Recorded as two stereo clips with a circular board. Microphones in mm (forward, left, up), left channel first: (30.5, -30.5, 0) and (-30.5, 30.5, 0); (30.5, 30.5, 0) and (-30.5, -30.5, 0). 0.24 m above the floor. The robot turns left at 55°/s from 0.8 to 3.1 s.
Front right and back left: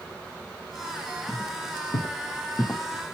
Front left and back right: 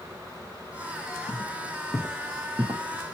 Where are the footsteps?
30° left, 1.0 m; by 2.8 s 140° right, 0.6 m.